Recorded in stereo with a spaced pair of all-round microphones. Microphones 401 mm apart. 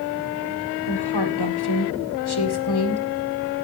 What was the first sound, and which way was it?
A woman speaking, 70° left (ahead or behind).